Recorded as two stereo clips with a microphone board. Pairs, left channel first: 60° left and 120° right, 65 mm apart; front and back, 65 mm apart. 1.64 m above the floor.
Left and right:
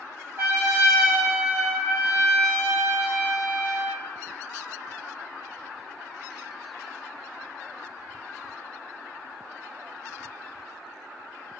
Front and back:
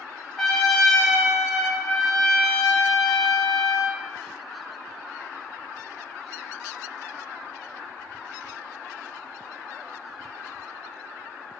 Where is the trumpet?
85° right, 1.2 m.